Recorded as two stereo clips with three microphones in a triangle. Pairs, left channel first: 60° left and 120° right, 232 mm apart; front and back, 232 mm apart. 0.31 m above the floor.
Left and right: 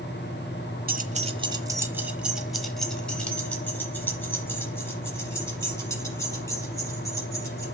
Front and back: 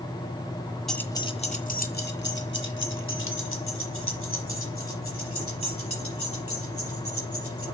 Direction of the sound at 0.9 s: 90° right.